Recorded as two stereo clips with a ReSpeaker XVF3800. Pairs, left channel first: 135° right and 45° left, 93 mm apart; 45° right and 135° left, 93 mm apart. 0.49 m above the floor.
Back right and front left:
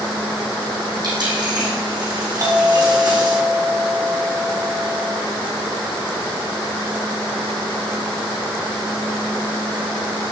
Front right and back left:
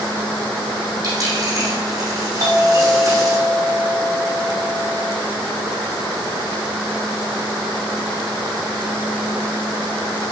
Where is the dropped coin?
85° left, 4 m.